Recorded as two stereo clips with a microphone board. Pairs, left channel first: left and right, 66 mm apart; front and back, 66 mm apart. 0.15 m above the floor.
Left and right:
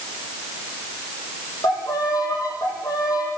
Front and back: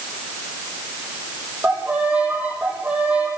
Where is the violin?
110° left, 4.5 m.